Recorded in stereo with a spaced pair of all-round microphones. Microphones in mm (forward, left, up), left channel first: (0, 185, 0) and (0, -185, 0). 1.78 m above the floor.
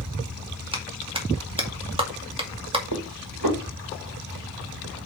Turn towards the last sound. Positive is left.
turn(degrees=-65)  # may be behind; listen again after turning